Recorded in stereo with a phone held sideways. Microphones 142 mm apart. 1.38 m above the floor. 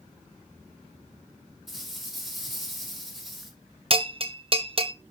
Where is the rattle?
Centre (ahead or behind), 5.5 m.